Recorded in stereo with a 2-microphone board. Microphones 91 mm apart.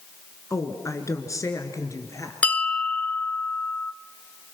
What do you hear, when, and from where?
0.5 s a woman speaking: 35° left (ahead or behind), 2.5 m
2.4 s a bell: 15° left (ahead or behind), 0.6 m